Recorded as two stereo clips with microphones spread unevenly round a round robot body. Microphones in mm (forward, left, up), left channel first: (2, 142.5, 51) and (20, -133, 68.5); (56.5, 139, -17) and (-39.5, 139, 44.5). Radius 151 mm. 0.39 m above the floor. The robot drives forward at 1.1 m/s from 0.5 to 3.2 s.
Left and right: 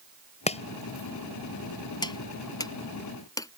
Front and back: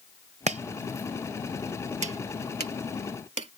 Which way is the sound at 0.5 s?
160° left.